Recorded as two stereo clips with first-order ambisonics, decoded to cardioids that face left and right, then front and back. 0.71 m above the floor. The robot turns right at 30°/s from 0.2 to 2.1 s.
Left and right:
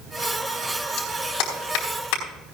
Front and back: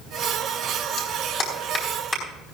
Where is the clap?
45° left, 4.5 m; by 2.2 s 80° left, 4.5 m.